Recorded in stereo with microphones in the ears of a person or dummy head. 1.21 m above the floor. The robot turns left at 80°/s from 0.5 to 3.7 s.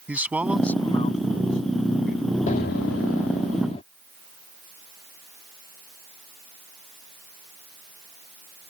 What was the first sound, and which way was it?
A man speaking, 170° right.